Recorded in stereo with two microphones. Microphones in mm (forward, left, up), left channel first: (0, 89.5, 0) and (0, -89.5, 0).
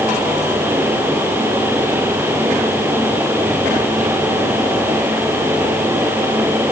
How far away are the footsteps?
I don't hear footsteps.